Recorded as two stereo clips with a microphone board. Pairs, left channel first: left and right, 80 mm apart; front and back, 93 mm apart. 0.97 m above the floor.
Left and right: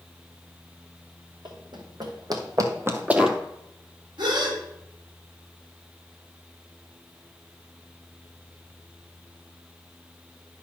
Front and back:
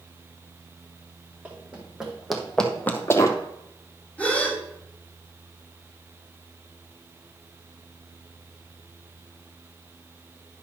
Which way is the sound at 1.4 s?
105° right.